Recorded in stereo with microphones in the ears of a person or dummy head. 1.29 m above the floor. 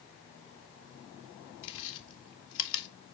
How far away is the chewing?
About 1.8 m.